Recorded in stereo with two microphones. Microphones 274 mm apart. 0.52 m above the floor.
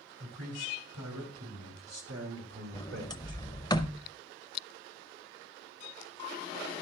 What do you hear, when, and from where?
0.2 s a man speaking: 70° right (ahead or behind), 4 m; by 3.4 s 40° right (ahead or behind), 2 m
2.7 s a sliding door: 15° left (ahead or behind), 0.7 m